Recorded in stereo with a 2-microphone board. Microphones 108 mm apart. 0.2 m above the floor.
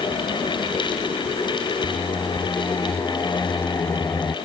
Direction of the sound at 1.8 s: 20° left (ahead or behind).